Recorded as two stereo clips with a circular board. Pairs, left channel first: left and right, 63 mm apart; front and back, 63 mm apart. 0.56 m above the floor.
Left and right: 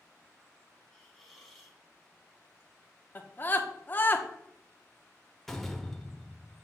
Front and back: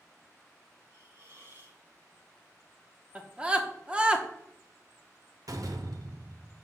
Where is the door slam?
175° left, 0.8 m.